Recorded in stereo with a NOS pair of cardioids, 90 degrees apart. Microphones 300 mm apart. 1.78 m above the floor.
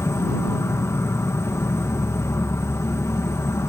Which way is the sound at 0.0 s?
10° left.